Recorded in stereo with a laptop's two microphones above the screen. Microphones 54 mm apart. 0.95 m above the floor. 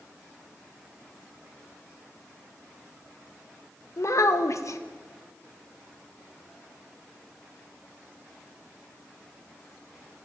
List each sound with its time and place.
4.0 s a child speaking: 65° left (ahead or behind), 0.6 m